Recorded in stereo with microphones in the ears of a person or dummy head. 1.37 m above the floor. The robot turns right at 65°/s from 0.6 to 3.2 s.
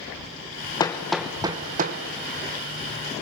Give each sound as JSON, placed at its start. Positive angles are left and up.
{"t": 0.8, "sound": "hammering", "side_deg": 20, "distance_m": 0.9}